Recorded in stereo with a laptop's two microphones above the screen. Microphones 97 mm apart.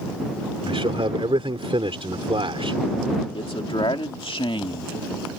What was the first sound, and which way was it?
A man speaking, 65° right (ahead or behind).